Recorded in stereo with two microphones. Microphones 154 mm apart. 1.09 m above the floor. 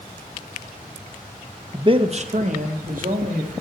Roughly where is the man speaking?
Right.